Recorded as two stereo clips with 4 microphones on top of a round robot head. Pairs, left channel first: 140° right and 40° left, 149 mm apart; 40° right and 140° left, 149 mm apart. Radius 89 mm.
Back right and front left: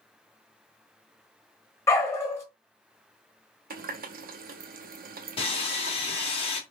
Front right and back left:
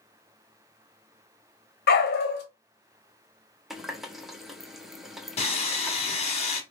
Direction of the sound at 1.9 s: 65° right.